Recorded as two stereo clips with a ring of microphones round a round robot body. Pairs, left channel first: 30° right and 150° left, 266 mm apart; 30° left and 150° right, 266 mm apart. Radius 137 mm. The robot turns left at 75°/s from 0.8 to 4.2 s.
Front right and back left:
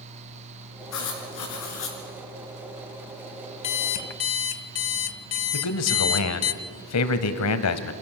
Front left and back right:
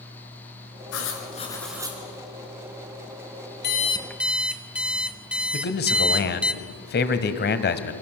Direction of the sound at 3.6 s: 20° right.